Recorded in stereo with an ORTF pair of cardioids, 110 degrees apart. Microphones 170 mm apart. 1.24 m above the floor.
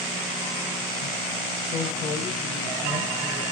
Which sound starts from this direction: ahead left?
A man speaking, at 1.6 s.